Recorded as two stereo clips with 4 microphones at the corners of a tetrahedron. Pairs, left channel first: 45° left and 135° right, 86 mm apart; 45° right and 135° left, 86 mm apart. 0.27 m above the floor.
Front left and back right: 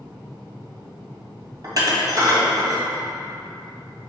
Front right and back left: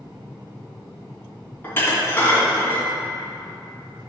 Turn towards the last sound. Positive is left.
turn(degrees=-105)